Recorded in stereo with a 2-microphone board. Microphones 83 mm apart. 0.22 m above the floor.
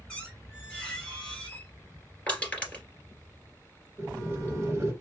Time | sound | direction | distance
0.1 | a squeak | 10° left (ahead or behind) | 2.5 m
2.3 | crushing | 15° left (ahead or behind) | 2.5 m
4.0 | boiling | 30° right (ahead or behind) | 1.9 m